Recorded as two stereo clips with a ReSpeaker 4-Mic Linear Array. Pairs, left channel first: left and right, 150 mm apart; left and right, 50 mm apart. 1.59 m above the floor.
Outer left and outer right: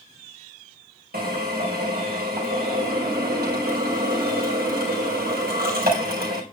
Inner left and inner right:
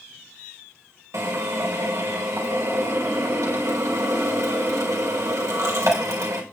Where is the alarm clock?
I don't hear an alarm clock.